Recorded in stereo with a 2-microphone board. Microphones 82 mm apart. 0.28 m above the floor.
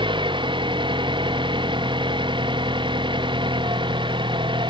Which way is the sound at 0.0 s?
75° right (ahead or behind).